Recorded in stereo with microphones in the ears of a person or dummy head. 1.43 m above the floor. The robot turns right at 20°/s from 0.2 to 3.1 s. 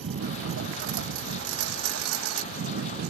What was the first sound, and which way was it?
A lawn mower, 65° right (ahead or behind).